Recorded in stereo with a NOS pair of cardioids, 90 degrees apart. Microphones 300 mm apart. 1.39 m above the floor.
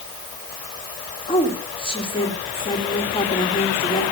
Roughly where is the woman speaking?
Ahead.